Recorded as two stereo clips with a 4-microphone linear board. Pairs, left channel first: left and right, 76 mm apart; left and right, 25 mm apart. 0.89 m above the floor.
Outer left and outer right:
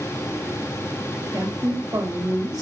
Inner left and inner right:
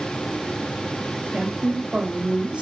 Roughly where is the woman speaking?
Right.